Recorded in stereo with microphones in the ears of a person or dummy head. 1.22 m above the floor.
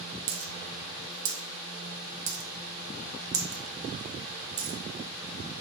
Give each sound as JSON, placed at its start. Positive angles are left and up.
{"t": 0.3, "sound": "a dropped coin", "side_deg": -25, "distance_m": 0.6}